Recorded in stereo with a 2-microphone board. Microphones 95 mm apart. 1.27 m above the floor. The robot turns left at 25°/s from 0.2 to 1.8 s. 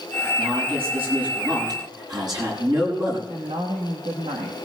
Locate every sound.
0.4 s a man speaking: 100° right, 7 m; by 3.2 s 135° right, 7 m
3.3 s a woman speaking: 80° right, 1.5 m